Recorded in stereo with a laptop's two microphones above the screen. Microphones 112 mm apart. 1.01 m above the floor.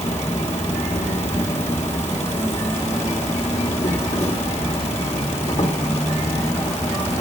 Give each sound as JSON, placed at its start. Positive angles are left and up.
{"t": 0.0, "sound": "an insect", "side_deg": 85, "distance_m": 2.5}